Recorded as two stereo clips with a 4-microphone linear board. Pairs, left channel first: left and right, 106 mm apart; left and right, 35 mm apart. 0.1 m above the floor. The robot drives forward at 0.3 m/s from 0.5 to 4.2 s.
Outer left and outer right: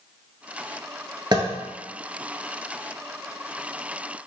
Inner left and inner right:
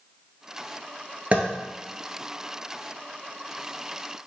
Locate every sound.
1.3 s tapping: 40° right (ahead or behind), 0.7 m